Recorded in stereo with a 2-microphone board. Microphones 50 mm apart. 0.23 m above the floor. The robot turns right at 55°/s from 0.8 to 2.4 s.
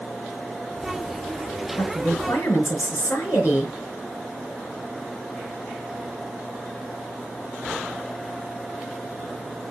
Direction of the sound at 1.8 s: 60° left.